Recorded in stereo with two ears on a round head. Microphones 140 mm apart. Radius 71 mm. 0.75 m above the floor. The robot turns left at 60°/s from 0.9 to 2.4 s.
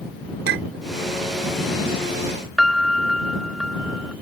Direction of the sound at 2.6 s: Centre (ahead or behind).